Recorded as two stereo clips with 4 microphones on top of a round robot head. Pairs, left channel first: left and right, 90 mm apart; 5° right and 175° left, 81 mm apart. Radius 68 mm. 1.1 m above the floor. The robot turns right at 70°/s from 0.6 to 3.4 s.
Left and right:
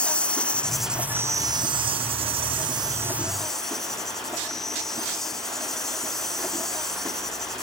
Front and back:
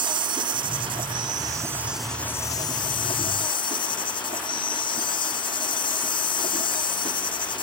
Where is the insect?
165° left; by 7.6 s 5° left.